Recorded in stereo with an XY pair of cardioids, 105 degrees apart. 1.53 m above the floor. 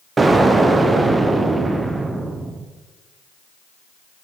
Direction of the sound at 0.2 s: 30° right.